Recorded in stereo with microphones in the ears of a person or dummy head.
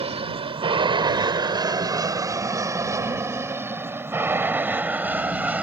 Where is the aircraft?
25° right (ahead or behind); by 5.6 s 5° right (ahead or behind).